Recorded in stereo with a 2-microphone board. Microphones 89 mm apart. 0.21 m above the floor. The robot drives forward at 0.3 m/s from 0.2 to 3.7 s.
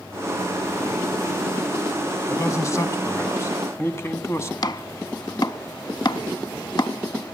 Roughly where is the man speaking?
Left.